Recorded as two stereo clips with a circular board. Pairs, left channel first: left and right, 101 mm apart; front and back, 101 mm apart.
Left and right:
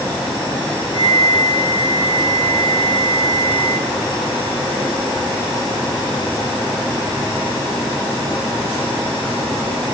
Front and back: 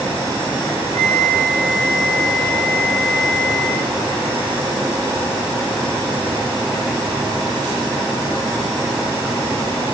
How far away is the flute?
About 6 m.